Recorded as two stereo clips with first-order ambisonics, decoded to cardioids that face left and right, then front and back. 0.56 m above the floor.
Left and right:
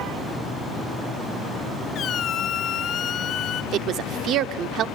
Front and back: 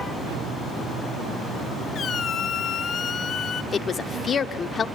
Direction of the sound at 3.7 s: 60° right.